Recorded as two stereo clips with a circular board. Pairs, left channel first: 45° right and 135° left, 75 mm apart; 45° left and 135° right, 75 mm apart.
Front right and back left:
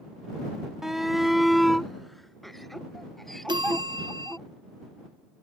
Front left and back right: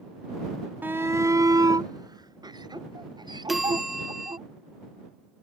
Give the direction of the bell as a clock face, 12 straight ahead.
7 o'clock.